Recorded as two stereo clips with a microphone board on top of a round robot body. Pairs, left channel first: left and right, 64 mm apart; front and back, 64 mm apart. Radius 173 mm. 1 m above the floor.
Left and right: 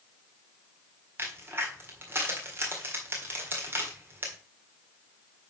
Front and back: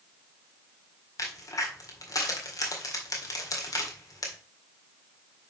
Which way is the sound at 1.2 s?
35° right.